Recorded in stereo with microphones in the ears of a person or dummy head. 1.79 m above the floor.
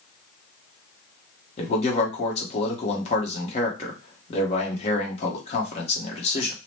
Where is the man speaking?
40° left (ahead or behind), 1.0 m.